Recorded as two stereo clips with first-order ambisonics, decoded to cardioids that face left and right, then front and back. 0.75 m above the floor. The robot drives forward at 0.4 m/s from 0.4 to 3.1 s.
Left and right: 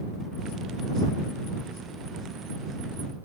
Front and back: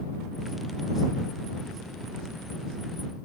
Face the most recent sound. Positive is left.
No sound to turn to.